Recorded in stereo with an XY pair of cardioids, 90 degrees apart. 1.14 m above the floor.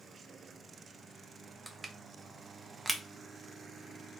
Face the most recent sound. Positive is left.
turn(degrees=-20)